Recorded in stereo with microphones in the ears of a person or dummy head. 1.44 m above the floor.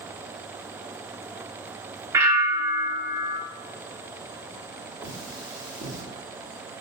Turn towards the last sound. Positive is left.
turn(degrees=-60)  # may be behind; listen again after turning